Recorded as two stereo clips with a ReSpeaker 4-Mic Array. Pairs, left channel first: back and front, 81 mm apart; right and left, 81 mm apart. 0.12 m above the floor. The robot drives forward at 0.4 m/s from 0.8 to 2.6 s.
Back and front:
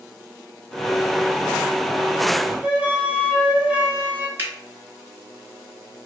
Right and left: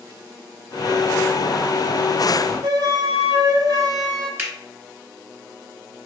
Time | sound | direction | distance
2.6 | a flute | 75° left | 0.7 m
4.4 | a finger snap | 45° left | 1.1 m